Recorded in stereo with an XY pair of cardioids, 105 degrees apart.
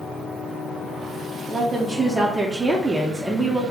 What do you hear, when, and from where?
1.5 s a woman speaking: 20° right, 0.6 m